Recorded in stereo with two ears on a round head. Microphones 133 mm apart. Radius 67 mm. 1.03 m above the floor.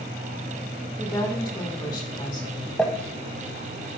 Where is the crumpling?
5° left (ahead or behind), 0.8 m.